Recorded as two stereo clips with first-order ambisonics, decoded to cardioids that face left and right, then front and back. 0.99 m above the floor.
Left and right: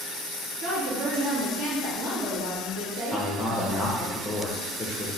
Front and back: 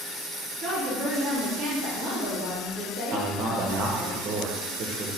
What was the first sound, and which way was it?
A woman speaking, 115° right.